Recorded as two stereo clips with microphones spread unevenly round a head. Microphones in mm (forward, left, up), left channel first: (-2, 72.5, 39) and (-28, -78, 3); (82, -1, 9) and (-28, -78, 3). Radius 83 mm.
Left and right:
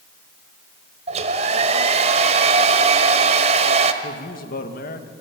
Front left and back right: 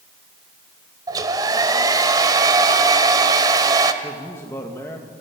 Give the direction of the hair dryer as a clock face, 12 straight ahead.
4 o'clock.